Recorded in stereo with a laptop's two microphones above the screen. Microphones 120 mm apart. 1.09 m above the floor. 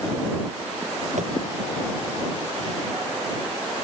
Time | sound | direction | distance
1.2 | tapping | 80° right | ?